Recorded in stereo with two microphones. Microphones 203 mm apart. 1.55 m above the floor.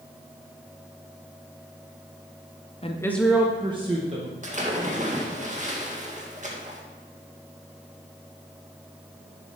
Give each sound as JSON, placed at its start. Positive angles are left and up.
{"t": 2.8, "sound": "a woman speaking", "side_deg": 30, "distance_m": 0.8}
{"t": 4.4, "sound": "a splash", "side_deg": -35, "distance_m": 1.8}